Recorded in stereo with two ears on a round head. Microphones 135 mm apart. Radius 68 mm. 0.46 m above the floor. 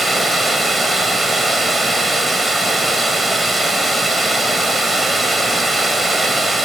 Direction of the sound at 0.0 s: Centre (ahead or behind).